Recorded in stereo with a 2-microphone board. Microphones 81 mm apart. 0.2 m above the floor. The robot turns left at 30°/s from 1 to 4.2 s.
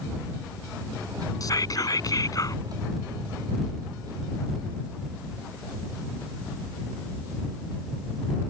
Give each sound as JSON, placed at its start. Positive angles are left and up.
{"t": 1.4, "sound": "whispering", "azimuth_deg": 105}